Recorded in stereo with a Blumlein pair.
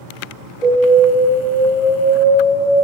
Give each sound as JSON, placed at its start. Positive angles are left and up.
{"t": 0.6, "sound": "an alarm", "azimuth_deg": 25, "distance_m": 0.9}